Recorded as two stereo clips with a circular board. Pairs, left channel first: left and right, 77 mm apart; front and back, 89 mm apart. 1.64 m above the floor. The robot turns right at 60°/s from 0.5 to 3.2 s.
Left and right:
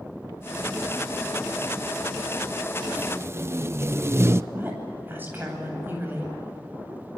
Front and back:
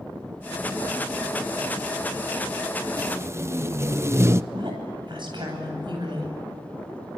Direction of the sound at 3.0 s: 145° right.